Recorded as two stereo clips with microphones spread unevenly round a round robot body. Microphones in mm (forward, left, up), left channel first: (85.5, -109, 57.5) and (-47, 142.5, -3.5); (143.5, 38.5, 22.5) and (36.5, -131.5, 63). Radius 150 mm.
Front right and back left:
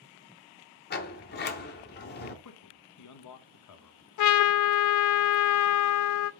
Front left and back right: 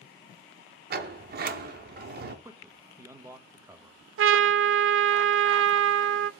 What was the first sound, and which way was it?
A sliding door, 105° right.